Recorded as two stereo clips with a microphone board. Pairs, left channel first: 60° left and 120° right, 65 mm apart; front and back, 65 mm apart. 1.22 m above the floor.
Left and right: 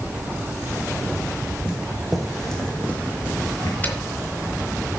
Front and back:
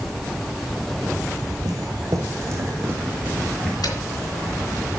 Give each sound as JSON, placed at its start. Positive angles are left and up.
{"t": 1.6, "sound": "footsteps", "azimuth_deg": 165, "distance_m": 3.5}
{"t": 3.8, "sound": "a dropped coin", "azimuth_deg": -5, "distance_m": 3.5}